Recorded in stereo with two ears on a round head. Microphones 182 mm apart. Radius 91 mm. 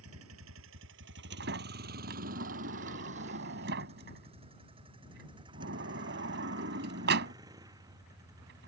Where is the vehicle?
90° right; by 8.7 s 15° right (ahead or behind).